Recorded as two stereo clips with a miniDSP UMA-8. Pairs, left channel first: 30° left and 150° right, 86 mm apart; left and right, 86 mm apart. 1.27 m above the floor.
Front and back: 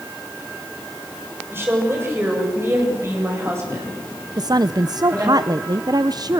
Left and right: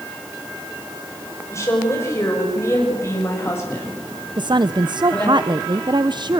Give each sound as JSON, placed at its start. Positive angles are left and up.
{"t": 1.5, "sound": "a woman speaking", "azimuth_deg": 145, "distance_m": 6.0}
{"t": 4.4, "sound": "a woman speaking", "azimuth_deg": -115, "distance_m": 0.5}